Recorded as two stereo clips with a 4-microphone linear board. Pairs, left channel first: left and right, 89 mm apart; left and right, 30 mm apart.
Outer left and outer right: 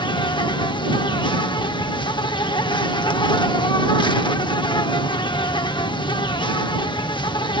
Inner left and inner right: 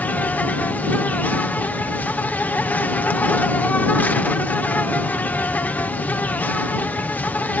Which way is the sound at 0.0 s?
60° left (ahead or behind).